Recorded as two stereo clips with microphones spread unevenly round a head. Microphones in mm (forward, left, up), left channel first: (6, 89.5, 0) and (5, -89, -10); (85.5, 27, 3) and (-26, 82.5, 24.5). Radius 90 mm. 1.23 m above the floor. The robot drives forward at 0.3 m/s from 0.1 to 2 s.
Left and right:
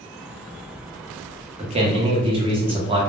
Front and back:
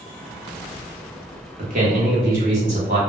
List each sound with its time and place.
1.6 s a man speaking: 150° right, 0.6 m; by 3.0 s 155° right, 0.7 m